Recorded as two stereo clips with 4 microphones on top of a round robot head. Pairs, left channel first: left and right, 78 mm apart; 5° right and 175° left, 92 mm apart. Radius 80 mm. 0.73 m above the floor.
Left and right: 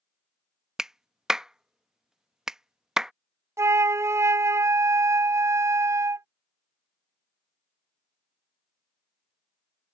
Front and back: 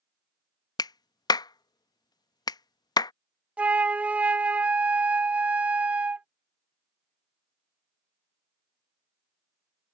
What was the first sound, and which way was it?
A clap, 10° right.